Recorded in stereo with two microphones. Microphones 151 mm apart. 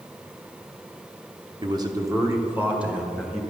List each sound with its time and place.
1.6 s a man speaking: 35° right (ahead or behind), 0.9 m; by 3.4 s 5° right (ahead or behind), 1.7 m